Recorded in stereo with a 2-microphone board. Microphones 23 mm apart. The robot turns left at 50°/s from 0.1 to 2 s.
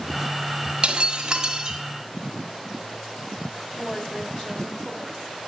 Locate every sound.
0.8 s breaking glass: 125° right, 1.5 m; by 1.8 s 175° right, 1.5 m
3.8 s a woman speaking: 35° left (ahead or behind), 1.5 m